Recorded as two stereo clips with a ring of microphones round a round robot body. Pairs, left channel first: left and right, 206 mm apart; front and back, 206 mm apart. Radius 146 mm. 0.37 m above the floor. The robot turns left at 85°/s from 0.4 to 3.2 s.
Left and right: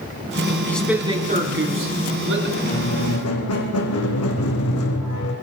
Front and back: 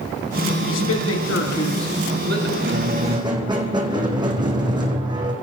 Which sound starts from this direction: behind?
A squeak, at 2.6 s.